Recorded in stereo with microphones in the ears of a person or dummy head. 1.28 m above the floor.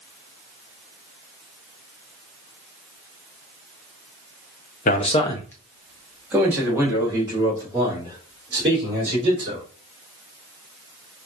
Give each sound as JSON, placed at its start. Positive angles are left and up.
{"t": 4.8, "sound": "a man speaking", "side_deg": 40, "distance_m": 0.6}